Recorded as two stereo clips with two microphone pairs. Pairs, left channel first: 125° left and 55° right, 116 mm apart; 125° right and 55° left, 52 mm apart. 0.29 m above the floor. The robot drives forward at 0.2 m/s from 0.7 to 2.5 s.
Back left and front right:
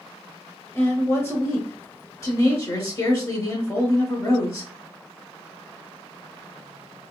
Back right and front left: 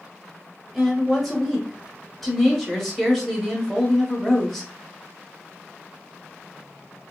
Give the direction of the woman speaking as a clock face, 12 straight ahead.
8 o'clock.